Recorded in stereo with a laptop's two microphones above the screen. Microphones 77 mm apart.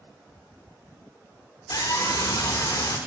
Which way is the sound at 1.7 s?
60° left (ahead or behind).